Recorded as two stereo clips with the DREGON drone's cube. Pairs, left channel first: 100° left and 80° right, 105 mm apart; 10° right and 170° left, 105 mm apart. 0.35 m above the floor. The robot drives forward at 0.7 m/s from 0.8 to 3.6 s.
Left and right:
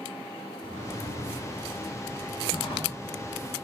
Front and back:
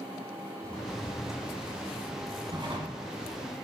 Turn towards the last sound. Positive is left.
turn(degrees=145)